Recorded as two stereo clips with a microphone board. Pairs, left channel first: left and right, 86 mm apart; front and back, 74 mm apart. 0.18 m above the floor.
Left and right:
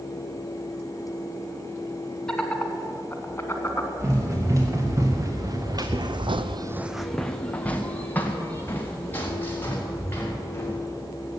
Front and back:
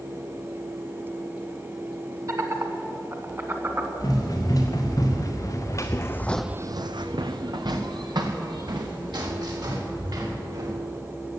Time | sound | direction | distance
2.3 | laughter | 170° left | 1.9 m
4.0 | running footsteps | 35° right | 4 m